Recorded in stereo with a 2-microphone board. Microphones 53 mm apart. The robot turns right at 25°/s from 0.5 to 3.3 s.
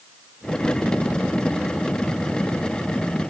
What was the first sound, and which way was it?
Only background noise.